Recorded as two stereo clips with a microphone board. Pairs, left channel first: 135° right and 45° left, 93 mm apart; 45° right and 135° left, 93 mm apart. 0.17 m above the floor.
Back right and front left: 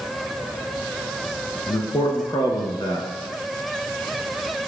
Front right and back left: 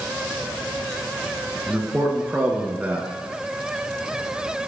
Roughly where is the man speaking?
Behind right.